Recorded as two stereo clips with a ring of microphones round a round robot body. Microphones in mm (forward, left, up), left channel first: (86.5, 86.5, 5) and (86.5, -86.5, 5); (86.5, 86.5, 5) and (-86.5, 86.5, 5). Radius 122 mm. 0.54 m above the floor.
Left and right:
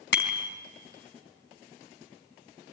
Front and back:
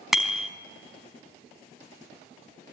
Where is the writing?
I don't hear writing.